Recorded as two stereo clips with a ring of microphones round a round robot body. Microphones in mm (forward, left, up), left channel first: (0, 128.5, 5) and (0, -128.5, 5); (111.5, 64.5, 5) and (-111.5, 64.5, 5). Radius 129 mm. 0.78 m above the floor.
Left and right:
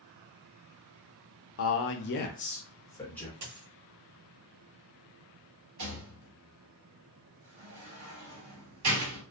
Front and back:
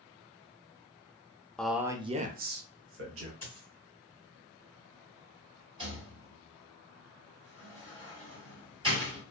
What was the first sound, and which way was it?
A man speaking, 85° left.